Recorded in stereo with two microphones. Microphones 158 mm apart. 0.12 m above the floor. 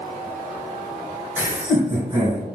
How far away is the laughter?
About 1.7 m.